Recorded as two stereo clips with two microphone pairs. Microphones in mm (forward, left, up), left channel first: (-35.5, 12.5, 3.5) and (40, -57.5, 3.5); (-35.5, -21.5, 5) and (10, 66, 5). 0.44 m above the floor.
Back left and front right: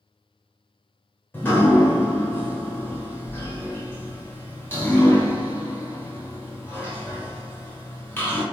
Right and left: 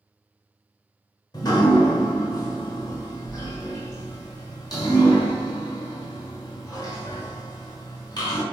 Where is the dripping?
160° right, 1.1 m.